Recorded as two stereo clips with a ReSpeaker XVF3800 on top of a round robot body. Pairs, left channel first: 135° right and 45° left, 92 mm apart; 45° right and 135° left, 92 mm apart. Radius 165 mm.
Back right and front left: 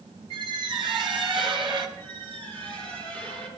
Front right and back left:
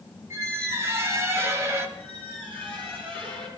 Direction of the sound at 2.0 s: 25° left.